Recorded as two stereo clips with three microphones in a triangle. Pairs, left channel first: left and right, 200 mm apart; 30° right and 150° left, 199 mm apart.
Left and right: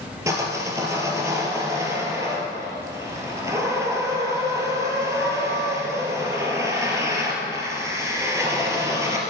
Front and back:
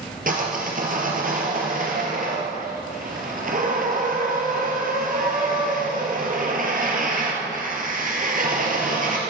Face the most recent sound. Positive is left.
turn(degrees=-165)